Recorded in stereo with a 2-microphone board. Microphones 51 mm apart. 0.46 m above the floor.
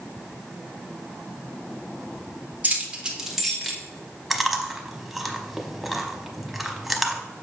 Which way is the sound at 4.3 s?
Centre (ahead or behind).